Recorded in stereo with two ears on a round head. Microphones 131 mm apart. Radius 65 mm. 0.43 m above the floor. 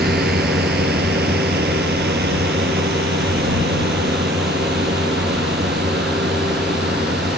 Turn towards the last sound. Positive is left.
turn(degrees=-85)